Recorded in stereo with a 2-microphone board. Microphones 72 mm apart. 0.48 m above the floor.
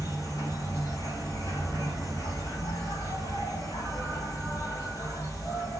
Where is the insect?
55° left (ahead or behind), 1.5 m.